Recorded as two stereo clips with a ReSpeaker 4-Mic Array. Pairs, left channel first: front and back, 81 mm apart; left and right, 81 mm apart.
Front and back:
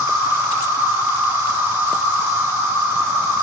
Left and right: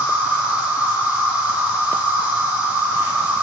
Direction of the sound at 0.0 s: 150° right.